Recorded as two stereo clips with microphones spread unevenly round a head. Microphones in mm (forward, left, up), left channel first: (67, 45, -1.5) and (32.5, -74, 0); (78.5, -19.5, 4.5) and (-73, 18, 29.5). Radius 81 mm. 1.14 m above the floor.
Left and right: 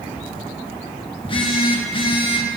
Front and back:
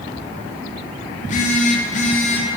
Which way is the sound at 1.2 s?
30° left.